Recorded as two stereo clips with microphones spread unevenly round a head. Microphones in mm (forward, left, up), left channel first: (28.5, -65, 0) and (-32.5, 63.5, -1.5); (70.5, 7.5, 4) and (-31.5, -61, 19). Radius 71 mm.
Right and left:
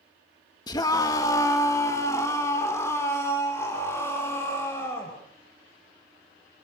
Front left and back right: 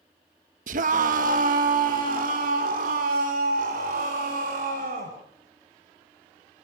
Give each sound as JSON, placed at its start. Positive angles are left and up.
{"t": 0.7, "sound": "a scream", "azimuth_deg": -130, "distance_m": 1.3}